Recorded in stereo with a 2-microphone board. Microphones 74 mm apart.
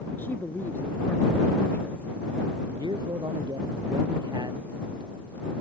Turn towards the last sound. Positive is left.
turn(degrees=-80)